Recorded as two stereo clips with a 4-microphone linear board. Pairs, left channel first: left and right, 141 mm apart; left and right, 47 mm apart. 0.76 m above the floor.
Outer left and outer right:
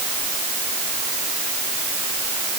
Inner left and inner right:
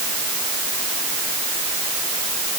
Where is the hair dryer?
I don't hear a hair dryer.